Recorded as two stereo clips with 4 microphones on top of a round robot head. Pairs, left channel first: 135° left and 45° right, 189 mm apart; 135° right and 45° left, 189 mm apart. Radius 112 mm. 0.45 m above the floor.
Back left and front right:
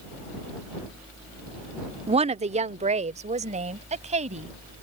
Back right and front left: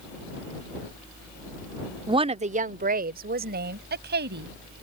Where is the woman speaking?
10° right; by 4.5 s 10° left.